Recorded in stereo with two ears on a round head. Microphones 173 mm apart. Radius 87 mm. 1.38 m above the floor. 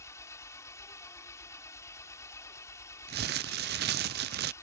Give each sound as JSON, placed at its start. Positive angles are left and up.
{"t": 0.0, "sound": "an engine running", "side_deg": 15}
{"t": 3.1, "sound": "crumpling", "side_deg": -55}